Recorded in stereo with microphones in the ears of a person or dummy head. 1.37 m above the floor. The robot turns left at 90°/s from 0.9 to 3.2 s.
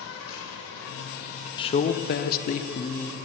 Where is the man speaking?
150° left, 0.5 m; by 3.2 s 5° left, 0.5 m.